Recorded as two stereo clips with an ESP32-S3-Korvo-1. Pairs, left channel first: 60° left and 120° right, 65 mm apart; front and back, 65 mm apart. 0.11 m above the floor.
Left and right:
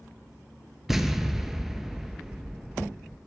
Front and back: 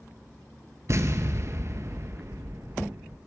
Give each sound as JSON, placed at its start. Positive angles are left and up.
{"t": 0.9, "sound": "an explosion", "azimuth_deg": 155, "distance_m": 0.6}